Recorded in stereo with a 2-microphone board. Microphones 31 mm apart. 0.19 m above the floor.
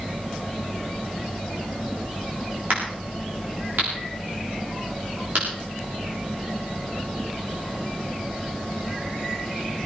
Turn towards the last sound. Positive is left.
turn(degrees=-80)